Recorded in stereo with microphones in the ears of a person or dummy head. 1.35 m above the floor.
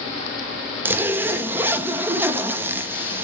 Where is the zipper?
15° right (ahead or behind), 0.7 m.